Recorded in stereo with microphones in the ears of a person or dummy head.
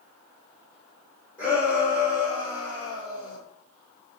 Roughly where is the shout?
Centre.